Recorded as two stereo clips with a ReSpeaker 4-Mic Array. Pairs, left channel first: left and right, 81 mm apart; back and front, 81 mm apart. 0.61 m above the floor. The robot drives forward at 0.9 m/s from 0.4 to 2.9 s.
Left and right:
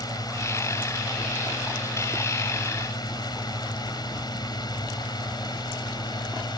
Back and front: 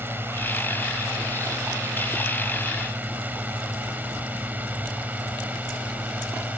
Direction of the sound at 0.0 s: 60° left.